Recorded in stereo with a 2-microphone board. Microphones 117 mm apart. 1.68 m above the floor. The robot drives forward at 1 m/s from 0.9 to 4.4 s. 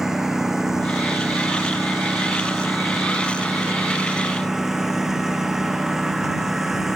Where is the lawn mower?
5° right (ahead or behind).